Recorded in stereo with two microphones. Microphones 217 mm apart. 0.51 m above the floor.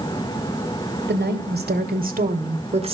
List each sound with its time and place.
1.1 s a woman speaking: 50° right (ahead or behind), 2.5 m; by 3.0 s 25° right (ahead or behind), 1.6 m